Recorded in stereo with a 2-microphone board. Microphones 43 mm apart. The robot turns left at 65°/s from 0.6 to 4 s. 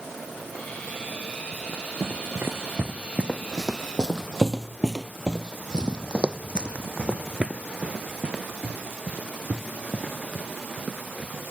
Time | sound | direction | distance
1.5 | running footsteps | 40° right (ahead or behind) | ?